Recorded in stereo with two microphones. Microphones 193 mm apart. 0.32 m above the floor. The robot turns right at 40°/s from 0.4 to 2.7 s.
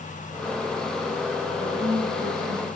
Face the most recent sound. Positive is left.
turn(degrees=-110)